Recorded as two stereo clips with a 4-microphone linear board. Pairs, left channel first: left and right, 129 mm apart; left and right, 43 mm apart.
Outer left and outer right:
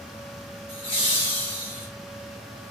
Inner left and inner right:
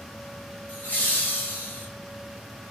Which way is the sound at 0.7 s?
40° left (ahead or behind).